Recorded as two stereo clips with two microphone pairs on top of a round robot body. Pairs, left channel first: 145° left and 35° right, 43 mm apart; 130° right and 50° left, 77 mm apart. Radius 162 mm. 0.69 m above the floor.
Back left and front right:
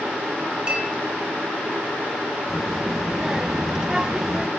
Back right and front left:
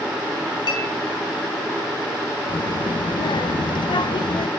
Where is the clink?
105° right, 3.5 m.